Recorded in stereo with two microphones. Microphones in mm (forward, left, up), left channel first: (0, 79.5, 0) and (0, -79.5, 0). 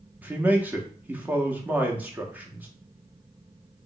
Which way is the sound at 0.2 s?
10° right (ahead or behind).